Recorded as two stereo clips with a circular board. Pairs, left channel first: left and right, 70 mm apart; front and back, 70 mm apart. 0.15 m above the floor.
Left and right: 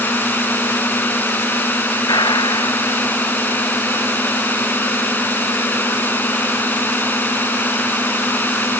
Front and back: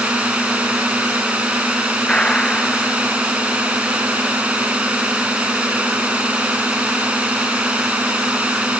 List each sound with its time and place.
0.0 s a drone: 120° left
2.1 s a gunshot: 80° left